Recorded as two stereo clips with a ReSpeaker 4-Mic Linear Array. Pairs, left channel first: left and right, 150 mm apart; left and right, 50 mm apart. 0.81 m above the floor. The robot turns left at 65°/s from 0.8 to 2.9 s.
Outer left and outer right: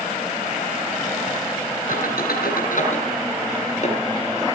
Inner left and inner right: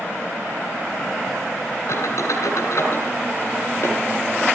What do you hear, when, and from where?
1.9 s a squeak: 65° left (ahead or behind), 7.5 m; by 4.0 s 50° left (ahead or behind), 7.5 m